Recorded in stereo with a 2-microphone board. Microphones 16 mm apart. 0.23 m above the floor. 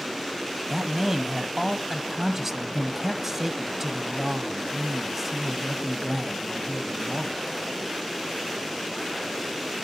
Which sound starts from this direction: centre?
A man speaking, at 0.7 s.